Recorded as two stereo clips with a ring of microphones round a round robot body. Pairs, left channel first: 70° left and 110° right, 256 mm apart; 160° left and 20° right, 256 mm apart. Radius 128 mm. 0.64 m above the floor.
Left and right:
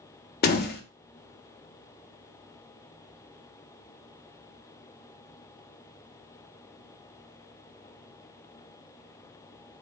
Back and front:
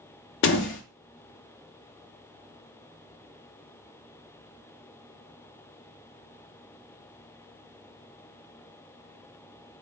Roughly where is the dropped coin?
No dropped coin in this recording.